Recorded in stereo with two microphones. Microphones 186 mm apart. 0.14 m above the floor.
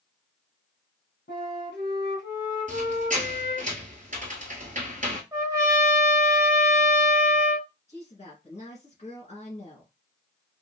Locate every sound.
1.3 s a flute: 70° left (ahead or behind), 1.9 m
2.7 s a squeak: 45° right (ahead or behind), 1.0 m
5.3 s a trumpet: 15° right (ahead or behind), 1.2 m
7.9 s a woman speaking: 35° left (ahead or behind), 1.6 m